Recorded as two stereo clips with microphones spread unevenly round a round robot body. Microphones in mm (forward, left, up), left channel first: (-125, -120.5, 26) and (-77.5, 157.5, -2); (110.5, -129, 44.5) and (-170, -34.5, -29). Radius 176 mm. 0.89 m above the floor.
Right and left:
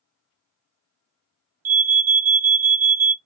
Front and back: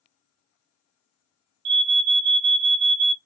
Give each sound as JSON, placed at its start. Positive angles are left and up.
{"t": 1.6, "sound": "an alarm", "azimuth_deg": 140, "distance_m": 0.7}